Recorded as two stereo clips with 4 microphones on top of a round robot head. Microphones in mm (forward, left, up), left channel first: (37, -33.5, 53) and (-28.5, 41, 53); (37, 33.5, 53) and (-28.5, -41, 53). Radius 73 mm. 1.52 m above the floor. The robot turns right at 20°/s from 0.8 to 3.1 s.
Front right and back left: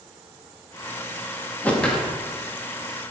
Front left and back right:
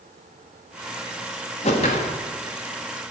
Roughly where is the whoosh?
Ahead left.